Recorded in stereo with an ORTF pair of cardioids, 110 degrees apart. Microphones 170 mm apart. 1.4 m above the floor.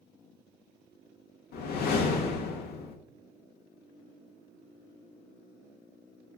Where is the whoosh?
70° left, 0.6 m.